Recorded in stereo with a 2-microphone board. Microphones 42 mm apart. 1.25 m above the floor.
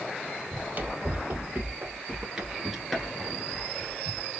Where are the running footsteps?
40° right (ahead or behind), 2 m; by 4.3 s 30° left (ahead or behind), 1.9 m.